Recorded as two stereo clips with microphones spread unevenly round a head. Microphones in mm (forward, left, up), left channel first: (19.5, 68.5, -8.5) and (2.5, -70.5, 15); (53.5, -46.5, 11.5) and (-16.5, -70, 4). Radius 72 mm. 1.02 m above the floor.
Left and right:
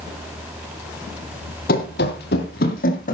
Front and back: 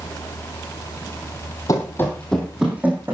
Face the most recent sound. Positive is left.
turn(degrees=125)